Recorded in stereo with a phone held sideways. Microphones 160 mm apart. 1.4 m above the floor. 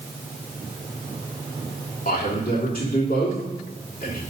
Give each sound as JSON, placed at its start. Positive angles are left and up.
{"t": 2.0, "sound": "a man speaking", "side_deg": 55, "distance_m": 3.0}